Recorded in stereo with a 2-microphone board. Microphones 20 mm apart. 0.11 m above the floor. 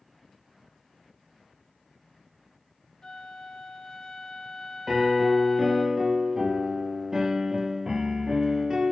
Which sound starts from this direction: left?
A flute, at 3.0 s.